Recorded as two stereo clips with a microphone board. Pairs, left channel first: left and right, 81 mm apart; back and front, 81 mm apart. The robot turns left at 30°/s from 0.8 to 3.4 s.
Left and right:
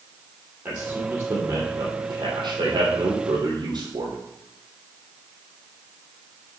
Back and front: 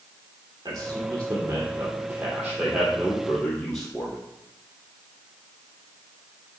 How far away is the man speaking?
About 3.5 m.